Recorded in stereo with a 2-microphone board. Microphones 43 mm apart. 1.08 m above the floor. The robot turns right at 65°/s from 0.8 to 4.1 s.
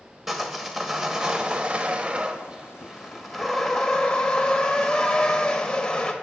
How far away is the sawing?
About 0.9 m.